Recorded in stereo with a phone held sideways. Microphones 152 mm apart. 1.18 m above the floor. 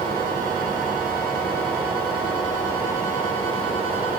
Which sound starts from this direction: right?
A fan, at 0.0 s.